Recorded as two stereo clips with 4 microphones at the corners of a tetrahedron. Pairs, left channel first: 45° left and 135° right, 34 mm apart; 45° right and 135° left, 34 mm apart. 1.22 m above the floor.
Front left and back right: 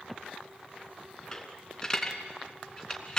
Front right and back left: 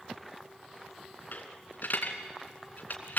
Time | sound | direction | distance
1.3 | a dropped coin | 20° right | 2.5 m